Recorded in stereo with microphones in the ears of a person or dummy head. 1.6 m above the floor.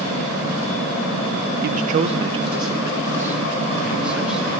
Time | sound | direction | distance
1.6 | a man speaking | 55° right (ahead or behind) | 0.9 m